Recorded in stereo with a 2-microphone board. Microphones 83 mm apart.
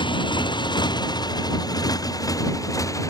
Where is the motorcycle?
75° left (ahead or behind); by 3.1 s 40° left (ahead or behind).